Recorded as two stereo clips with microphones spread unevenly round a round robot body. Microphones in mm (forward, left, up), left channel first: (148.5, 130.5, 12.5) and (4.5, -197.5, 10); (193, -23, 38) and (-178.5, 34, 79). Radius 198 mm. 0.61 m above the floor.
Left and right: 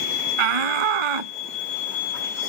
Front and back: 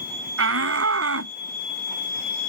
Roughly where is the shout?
Behind right.